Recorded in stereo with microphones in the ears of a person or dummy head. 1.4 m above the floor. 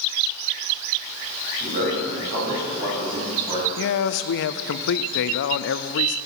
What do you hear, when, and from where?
1.6 s a man speaking: 50° right (ahead or behind), 6 m; by 3.7 s 30° right (ahead or behind), 6.5 m
3.8 s a man speaking: 65° left (ahead or behind), 0.6 m